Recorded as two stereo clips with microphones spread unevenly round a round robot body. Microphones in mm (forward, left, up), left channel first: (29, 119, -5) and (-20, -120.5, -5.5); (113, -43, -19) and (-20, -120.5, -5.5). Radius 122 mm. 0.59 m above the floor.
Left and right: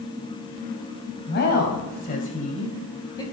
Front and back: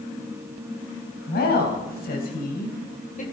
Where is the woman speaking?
35° left, 3.5 m; by 3.2 s 5° left, 2.5 m.